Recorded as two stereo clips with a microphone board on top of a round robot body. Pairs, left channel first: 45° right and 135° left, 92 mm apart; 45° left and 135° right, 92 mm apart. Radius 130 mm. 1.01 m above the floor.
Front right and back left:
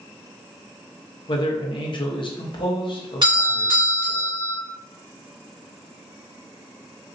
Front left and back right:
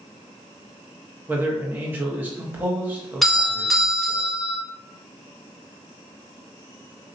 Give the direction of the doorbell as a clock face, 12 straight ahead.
8 o'clock.